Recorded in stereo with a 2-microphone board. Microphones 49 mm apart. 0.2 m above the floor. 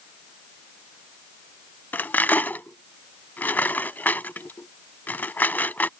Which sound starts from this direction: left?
Cutlery clinking, at 1.9 s.